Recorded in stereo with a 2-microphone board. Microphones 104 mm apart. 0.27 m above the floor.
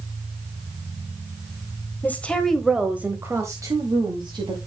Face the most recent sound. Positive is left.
turn(degrees=-45)  # may be behind; listen again after turning